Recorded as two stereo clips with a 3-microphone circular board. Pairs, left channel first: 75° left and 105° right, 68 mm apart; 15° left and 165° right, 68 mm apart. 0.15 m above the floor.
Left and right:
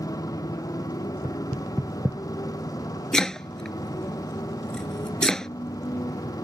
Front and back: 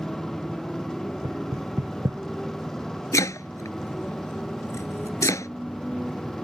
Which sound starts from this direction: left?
A motorcycle, at 0.0 s.